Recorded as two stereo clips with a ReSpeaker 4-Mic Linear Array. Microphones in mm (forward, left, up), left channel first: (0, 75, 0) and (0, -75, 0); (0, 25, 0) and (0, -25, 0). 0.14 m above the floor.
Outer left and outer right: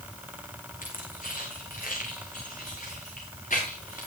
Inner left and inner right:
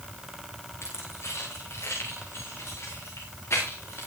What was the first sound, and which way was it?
Keys jangling, 65° left (ahead or behind).